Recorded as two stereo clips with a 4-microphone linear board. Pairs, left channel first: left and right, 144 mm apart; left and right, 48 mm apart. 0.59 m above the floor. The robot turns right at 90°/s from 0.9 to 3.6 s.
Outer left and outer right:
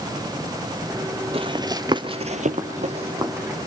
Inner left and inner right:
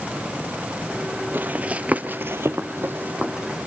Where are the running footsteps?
45° right (ahead or behind), 1.0 m; by 3.6 s centre (ahead or behind), 2.5 m.